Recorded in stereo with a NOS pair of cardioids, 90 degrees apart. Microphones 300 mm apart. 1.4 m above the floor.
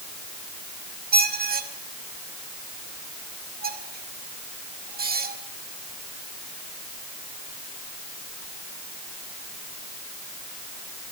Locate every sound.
1.1 s a squeak: 30° right, 2.5 m